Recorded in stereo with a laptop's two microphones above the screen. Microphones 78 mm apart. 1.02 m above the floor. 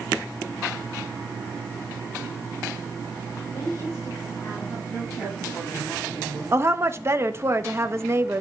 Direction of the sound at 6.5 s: 35° right (ahead or behind).